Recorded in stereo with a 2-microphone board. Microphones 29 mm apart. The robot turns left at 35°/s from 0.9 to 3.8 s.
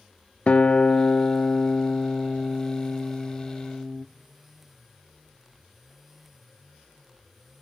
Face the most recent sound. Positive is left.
turn(degrees=-10)